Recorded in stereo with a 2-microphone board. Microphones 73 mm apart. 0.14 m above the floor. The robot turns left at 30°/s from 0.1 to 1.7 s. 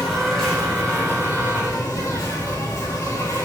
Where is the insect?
Straight behind, 2.5 m; by 3.5 s 135° left, 2.5 m.